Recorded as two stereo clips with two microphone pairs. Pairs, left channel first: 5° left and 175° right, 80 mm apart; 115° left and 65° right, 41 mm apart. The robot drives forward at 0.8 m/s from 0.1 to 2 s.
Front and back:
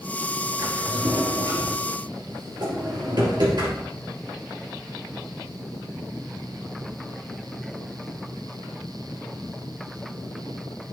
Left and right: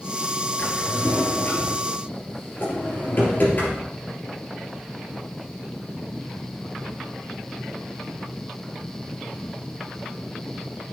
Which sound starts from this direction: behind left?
A drawer, at 0.6 s.